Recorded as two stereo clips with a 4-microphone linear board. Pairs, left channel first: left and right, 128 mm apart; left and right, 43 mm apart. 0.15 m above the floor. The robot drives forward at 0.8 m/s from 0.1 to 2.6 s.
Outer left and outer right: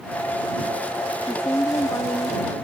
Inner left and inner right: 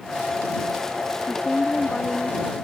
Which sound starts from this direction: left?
A woman speaking, at 1.2 s.